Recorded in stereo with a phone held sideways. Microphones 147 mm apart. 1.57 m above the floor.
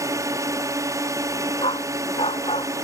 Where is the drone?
25° right (ahead or behind).